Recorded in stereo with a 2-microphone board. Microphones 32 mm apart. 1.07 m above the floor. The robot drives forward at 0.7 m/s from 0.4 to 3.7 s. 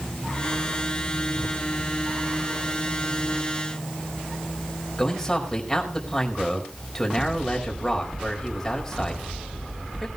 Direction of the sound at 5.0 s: 15° left (ahead or behind).